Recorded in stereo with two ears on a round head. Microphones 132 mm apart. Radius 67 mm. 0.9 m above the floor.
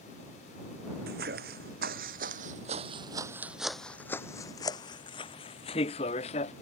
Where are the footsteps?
70° right (ahead or behind); by 6.5 s 40° left (ahead or behind).